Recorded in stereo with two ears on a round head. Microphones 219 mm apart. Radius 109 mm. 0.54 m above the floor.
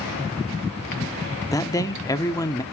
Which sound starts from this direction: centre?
A man speaking, at 1.5 s.